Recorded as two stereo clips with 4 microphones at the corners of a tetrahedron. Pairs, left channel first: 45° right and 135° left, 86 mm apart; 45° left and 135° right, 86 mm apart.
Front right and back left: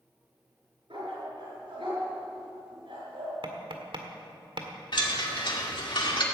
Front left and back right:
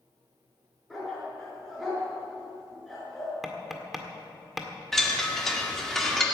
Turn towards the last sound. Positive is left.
turn(degrees=-40)